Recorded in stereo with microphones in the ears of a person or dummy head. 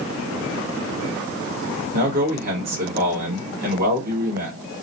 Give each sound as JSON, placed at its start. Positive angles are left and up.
{"t": 1.9, "sound": "a man speaking", "side_deg": -40, "distance_m": 1.4}